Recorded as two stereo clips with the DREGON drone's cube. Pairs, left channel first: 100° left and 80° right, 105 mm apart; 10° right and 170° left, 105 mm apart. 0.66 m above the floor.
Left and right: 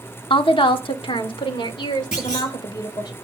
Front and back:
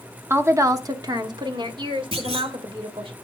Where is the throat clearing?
No throat clearing in this recording.